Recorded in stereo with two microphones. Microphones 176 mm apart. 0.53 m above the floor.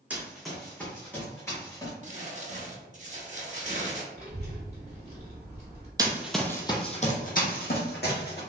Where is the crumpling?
45° right (ahead or behind), 0.8 m.